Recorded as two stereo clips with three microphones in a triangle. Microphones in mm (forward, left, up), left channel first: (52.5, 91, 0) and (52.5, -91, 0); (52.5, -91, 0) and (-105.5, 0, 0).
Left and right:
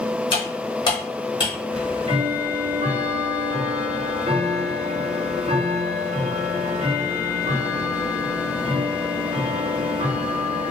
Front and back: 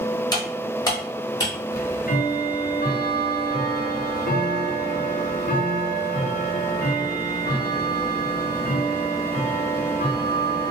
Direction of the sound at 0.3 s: 30° left.